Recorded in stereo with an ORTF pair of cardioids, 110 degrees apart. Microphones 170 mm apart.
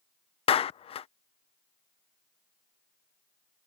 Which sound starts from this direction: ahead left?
A clap, at 0.5 s.